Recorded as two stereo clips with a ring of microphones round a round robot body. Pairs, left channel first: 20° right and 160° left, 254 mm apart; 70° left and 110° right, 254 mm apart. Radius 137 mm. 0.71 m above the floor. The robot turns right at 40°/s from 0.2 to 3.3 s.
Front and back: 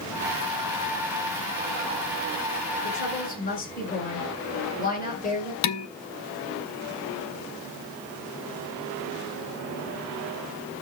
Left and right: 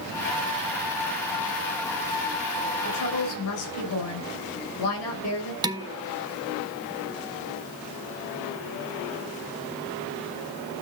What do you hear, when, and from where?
2.8 s a woman speaking: 20° left, 8 m; by 5.5 s 35° left, 8 m
5.6 s dishes clattering: 40° right, 1.3 m